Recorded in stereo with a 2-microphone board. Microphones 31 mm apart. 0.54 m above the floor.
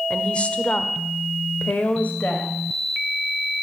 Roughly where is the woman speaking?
Left.